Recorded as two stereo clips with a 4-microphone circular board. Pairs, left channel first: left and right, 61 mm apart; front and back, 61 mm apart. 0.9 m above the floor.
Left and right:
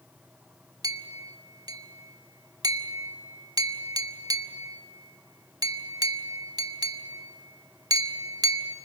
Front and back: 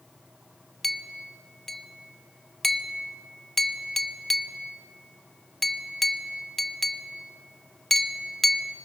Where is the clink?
85° right, 0.9 m.